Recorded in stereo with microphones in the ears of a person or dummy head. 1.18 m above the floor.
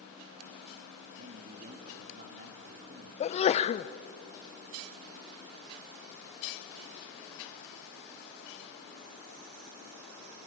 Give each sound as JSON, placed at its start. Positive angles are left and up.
{"t": 1.2, "sound": "a man speaking", "side_deg": -45, "distance_m": 3.0}
{"t": 3.2, "sound": "a sneeze", "side_deg": 30, "distance_m": 0.6}